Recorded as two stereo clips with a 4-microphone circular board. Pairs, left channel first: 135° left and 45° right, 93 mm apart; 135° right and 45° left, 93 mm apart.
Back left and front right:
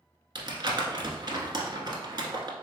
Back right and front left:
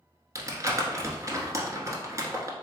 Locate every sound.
0.3 s crumpling: 5° right, 1.0 m